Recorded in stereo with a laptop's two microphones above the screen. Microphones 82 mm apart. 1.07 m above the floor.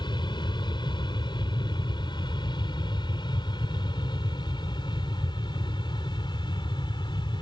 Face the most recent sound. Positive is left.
turn(degrees=70)  # may be behind; listen again after turning